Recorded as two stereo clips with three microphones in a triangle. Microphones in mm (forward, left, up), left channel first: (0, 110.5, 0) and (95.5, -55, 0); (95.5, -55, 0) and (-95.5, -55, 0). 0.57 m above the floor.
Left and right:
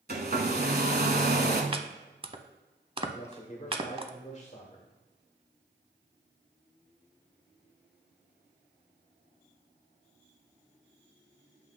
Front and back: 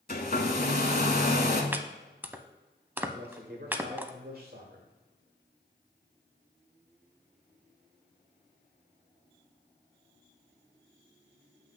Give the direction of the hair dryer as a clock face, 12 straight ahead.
1 o'clock.